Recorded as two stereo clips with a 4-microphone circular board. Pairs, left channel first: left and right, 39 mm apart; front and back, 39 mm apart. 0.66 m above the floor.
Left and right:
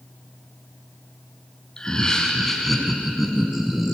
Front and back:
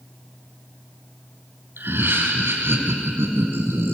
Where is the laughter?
160° left, 5 m; by 3.9 s 170° right, 6 m.